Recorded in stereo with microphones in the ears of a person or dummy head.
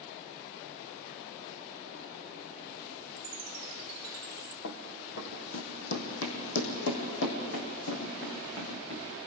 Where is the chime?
50° right (ahead or behind), 0.6 m.